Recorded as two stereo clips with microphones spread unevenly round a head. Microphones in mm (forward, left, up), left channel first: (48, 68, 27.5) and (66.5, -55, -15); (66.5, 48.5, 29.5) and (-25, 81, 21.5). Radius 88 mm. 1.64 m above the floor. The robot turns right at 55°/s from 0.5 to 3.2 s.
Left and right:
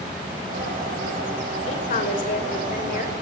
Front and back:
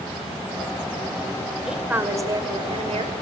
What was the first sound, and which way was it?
A woman speaking, 75° left.